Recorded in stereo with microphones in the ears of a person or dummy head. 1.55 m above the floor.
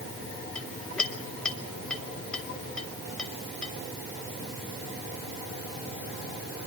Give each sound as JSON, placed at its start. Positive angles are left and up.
{"t": 0.6, "sound": "a clink", "side_deg": 5, "distance_m": 1.9}